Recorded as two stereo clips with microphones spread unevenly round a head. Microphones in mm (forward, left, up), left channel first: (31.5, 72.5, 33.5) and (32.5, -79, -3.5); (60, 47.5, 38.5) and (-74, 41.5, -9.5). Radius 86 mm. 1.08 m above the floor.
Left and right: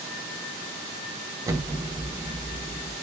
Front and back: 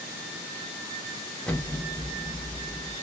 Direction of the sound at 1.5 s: 105° right.